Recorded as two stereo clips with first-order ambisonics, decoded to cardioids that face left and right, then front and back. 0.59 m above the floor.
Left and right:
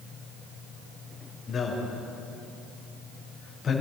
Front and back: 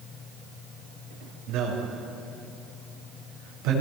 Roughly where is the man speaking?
Behind left.